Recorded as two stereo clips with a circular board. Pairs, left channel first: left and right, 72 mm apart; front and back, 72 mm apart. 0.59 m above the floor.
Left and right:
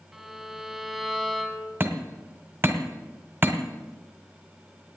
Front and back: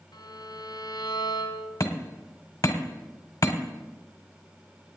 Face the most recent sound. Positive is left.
turn(degrees=-30)